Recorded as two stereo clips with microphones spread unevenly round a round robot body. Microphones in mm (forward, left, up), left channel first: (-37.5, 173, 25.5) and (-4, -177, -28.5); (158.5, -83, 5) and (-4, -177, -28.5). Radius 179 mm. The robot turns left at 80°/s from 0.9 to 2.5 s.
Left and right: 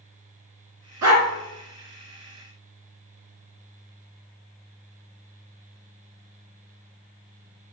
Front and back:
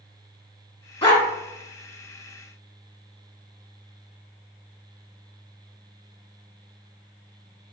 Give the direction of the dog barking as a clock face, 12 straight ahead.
1 o'clock.